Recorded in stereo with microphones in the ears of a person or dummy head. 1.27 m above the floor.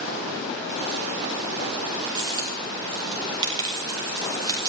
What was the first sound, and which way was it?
A dropped coin, 20° right (ahead or behind).